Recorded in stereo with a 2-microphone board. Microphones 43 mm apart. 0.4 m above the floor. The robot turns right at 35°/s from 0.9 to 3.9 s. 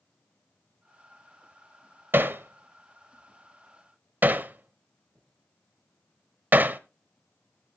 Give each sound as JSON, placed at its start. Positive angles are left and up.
{"t": 2.1, "sound": "hammering", "side_deg": -55, "distance_m": 0.8}